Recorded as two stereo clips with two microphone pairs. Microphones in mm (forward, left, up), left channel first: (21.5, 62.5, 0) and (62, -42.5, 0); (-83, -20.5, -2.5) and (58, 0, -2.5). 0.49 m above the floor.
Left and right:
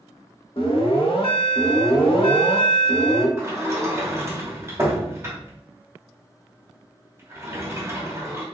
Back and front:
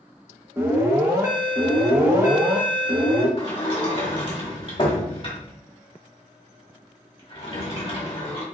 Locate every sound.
0.6 s an alarm: 75° left, 0.8 m
3.4 s a sliding door: 130° right, 1.1 m